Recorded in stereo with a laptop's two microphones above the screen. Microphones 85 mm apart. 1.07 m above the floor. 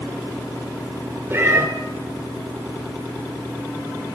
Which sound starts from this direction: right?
A cat meowing, at 1.3 s.